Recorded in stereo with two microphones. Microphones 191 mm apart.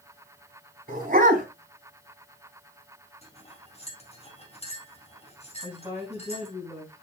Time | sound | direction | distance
0.9 | a dog barking | 45° right (ahead or behind) | 3 m
3.2 | cutlery clinking | 35° left (ahead or behind) | 3.5 m
5.6 | a woman speaking | 10° right (ahead or behind) | 6 m